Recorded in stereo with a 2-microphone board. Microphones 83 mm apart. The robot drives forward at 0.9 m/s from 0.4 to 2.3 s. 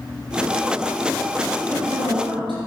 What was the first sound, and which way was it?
A man speaking, 70° right (ahead or behind).